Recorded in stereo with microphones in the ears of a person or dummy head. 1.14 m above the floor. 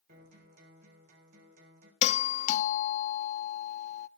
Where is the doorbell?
35° left (ahead or behind), 0.6 m.